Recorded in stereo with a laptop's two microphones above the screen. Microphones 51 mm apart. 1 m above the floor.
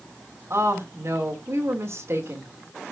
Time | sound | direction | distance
0.5 | a woman speaking | 55° right (ahead or behind) | 2.5 m